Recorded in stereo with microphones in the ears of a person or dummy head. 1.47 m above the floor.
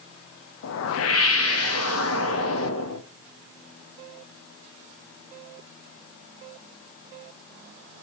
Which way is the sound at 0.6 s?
75° left (ahead or behind).